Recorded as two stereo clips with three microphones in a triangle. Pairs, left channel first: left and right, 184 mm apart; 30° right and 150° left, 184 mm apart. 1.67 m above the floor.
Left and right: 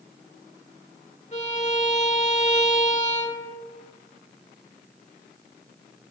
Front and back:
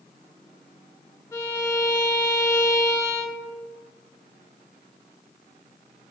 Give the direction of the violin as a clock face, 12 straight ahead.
11 o'clock.